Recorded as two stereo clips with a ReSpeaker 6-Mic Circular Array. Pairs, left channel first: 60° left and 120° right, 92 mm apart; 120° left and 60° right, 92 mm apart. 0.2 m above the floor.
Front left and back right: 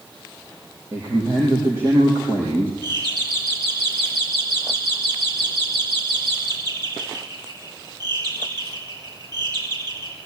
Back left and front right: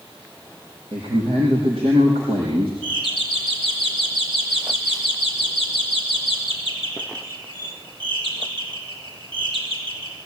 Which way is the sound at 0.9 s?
60° right.